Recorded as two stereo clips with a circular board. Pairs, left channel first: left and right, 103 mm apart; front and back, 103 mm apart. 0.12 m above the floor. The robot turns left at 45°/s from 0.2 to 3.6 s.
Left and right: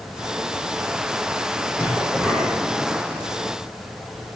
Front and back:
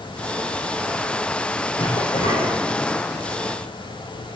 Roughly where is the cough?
Ahead.